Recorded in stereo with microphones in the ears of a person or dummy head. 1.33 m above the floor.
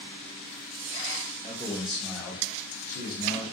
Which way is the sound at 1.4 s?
15° right (ahead or behind).